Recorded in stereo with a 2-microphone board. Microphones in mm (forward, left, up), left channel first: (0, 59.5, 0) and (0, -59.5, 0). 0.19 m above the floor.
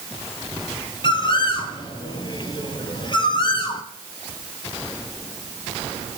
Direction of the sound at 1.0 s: 40° left (ahead or behind).